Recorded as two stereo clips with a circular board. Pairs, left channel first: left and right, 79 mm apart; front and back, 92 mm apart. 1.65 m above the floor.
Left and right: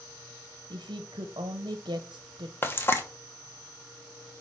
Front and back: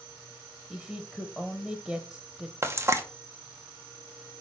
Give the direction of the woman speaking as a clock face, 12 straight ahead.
3 o'clock.